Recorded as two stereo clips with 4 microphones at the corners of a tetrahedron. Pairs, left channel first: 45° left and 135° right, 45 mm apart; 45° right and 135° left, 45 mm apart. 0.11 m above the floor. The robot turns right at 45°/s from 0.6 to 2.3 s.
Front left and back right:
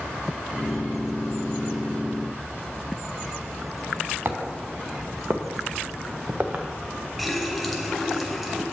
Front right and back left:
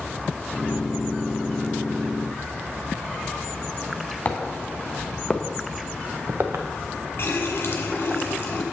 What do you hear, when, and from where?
4.2 s footsteps: 100° right, 1.5 m; by 6.6 s 165° left, 1.0 m
7.2 s a running tap: 45° right, 1.3 m